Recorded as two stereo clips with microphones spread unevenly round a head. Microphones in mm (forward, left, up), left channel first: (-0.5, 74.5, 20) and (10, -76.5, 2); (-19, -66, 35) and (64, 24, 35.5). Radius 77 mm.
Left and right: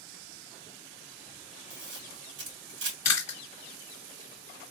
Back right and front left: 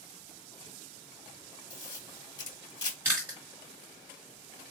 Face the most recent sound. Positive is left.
turn(degrees=110)